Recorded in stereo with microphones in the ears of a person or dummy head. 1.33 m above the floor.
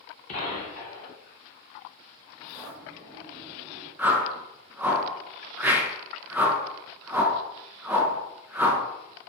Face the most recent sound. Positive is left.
turn(degrees=-10)  # may be behind; listen again after turning